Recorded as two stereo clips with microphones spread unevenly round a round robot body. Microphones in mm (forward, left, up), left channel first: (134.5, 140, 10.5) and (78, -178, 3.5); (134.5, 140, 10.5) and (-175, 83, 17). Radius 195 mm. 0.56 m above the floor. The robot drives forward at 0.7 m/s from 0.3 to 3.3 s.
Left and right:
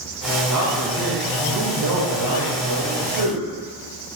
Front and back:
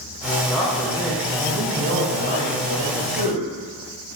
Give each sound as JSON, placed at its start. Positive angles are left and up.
{"t": 0.5, "sound": "a man speaking", "azimuth_deg": -75, "distance_m": 2.0}